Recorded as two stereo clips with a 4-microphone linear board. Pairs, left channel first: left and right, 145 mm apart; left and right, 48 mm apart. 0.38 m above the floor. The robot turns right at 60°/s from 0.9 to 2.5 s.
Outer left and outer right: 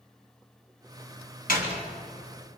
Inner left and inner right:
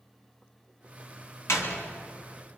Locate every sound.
1.5 s a door slam: 75° left (ahead or behind), 3 m; by 1.8 s 65° left (ahead or behind), 3 m